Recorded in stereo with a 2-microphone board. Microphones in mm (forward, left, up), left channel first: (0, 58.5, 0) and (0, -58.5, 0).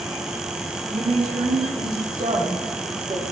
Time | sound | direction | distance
0.9 | a woman speaking | 80° right | 8 m